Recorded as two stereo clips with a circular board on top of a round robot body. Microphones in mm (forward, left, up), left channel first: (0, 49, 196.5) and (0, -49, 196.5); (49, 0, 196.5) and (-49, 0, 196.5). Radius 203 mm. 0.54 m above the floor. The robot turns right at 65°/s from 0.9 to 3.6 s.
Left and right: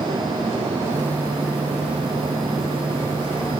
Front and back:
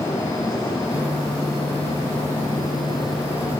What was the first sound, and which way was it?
Only background noise.